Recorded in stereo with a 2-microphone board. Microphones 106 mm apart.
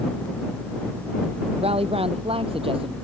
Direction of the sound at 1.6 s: 70° right (ahead or behind).